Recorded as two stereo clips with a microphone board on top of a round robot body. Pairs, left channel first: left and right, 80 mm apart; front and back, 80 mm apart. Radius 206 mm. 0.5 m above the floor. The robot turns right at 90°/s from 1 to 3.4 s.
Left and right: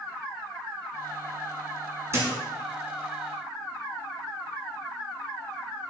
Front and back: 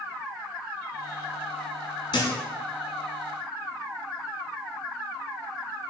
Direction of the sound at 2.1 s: 35° right.